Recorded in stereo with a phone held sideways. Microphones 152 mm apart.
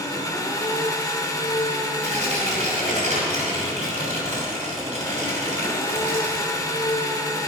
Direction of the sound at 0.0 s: 25° left (ahead or behind).